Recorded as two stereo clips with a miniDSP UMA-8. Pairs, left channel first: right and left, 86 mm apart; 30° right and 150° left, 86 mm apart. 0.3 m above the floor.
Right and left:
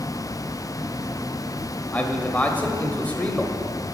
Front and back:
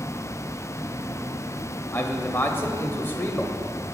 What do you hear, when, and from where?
1.9 s a man speaking: 40° right, 1.0 m